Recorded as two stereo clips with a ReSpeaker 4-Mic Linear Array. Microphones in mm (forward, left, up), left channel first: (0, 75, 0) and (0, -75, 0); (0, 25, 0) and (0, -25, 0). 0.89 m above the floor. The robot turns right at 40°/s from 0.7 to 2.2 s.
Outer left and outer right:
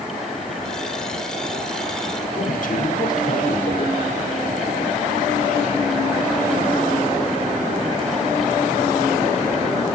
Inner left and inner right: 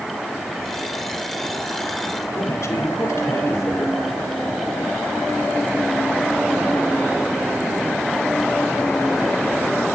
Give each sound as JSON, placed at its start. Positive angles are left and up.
{"t": 2.3, "sound": "a man speaking", "side_deg": 65, "distance_m": 2.5}